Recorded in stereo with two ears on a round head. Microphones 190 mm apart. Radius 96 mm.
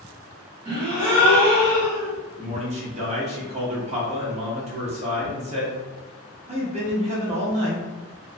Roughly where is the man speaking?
Right.